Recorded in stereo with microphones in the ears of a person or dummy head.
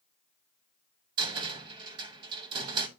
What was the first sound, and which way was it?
A cupboard door, 25° right (ahead or behind).